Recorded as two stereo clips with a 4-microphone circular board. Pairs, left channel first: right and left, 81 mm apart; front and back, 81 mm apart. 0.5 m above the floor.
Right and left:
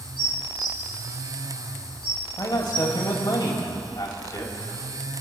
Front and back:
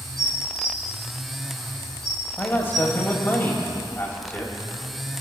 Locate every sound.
0.2 s dishes clattering: 85° right, 6.5 m
2.4 s a man speaking: 60° right, 3.5 m